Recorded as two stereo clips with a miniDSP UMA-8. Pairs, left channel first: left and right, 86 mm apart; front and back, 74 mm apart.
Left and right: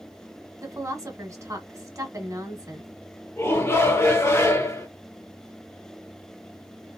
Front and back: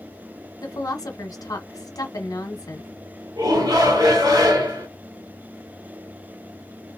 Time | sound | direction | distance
0.6 | a woman speaking | 35° right | 1.3 m
3.4 | a shout | 150° left | 1.7 m